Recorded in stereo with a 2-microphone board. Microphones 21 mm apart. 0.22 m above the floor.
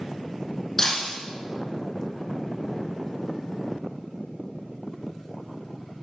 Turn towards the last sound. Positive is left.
turn(degrees=25)  # may be behind; listen again after turning